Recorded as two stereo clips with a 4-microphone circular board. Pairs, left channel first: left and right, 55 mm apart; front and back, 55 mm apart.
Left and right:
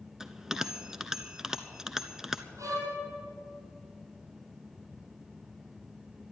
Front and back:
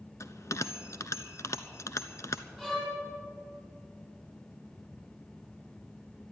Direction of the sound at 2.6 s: 80° right.